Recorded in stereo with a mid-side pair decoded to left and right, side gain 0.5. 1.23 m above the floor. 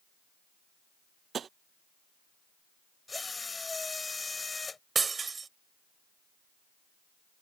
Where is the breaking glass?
30° right.